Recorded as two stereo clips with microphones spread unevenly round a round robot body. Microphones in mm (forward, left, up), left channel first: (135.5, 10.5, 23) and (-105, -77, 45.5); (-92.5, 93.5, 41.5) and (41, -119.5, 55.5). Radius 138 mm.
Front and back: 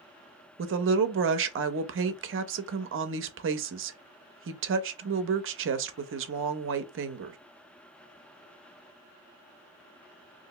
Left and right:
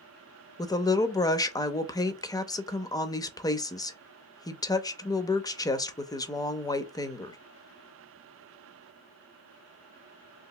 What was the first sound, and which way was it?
A woman speaking, 170° right.